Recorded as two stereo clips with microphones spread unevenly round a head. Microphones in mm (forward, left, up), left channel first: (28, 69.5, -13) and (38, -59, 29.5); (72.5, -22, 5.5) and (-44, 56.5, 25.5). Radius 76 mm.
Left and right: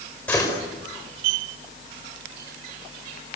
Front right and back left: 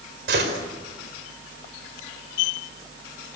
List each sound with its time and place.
0.3 s a gunshot: 175° left, 5 m